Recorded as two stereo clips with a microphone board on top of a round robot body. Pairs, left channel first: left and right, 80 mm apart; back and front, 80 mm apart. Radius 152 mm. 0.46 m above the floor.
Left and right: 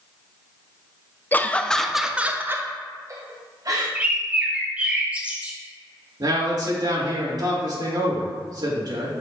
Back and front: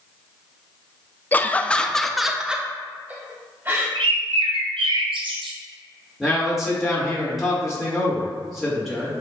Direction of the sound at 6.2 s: 90° right.